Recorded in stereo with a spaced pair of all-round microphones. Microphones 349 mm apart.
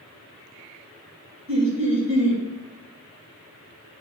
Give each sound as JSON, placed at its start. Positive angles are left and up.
{"t": 1.5, "sound": "laughter", "side_deg": -35, "distance_m": 2.0}